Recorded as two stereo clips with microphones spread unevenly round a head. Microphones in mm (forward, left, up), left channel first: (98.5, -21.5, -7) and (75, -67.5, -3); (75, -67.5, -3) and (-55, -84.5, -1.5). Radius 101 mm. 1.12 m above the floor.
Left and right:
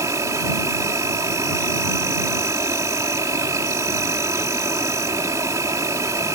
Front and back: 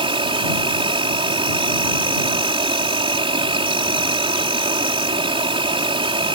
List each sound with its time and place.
0.0 s an insect: 125° right